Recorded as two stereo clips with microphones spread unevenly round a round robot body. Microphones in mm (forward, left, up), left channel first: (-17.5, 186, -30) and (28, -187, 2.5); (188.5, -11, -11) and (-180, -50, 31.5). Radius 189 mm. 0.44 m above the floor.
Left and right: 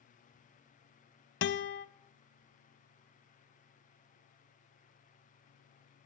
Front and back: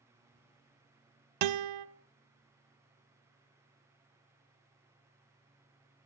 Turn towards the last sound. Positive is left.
turn(degrees=160)